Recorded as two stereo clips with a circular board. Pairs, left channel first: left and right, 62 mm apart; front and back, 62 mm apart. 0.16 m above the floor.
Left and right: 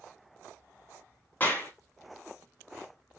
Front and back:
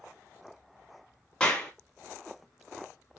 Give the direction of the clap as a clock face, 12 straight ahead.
10 o'clock.